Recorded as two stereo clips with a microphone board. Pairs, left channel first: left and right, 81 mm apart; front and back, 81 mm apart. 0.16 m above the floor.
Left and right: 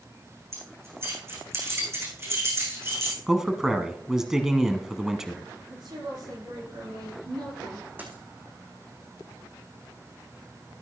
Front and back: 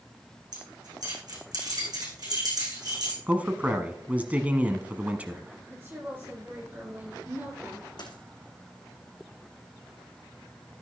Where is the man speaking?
160° right, 1.1 m.